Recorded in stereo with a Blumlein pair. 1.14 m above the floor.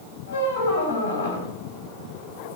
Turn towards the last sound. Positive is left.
turn(degrees=60)